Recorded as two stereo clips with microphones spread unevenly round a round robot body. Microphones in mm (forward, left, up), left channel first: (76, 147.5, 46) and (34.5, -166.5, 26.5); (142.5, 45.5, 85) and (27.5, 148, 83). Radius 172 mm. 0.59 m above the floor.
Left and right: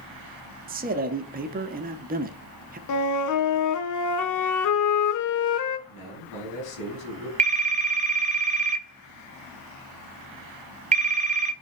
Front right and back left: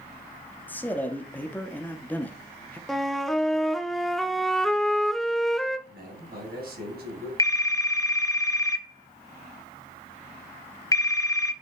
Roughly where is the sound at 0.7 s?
Right.